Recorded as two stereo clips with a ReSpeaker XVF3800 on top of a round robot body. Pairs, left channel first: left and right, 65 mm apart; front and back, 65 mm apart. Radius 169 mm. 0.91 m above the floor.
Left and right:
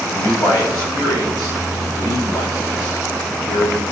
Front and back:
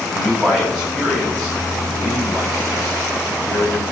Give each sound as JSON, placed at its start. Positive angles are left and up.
{"t": 0.1, "sound": "a man speaking", "azimuth_deg": 95, "distance_m": 4.5}